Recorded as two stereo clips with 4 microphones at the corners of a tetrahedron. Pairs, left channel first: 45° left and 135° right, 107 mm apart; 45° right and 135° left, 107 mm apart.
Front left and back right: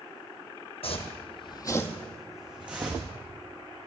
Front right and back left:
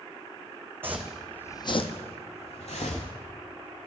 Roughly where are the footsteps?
Ahead left.